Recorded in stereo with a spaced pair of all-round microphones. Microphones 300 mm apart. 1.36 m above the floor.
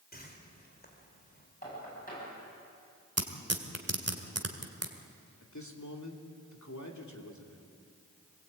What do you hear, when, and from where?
0.1 s a whoosh: 30° left (ahead or behind), 3.5 m
1.6 s knocking: 30° left (ahead or behind), 9.5 m
3.2 s tearing paper: 55° right (ahead or behind), 2.0 m
5.4 s a man speaking: 70° left (ahead or behind), 3 m